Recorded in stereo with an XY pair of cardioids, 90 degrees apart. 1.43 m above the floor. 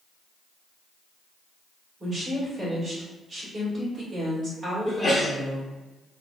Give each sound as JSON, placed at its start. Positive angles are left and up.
{"t": 2.0, "sound": "a woman speaking", "azimuth_deg": -40, "distance_m": 1.7}
{"t": 4.8, "sound": "a sneeze", "azimuth_deg": 15, "distance_m": 0.8}